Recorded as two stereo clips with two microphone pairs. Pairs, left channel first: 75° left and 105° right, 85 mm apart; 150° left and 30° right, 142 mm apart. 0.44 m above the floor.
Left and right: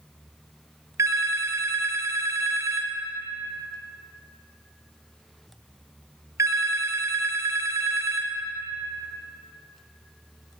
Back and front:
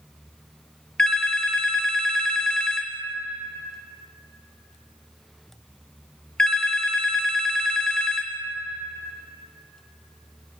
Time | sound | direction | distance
1.0 | a phone ringing | 130° right | 0.6 m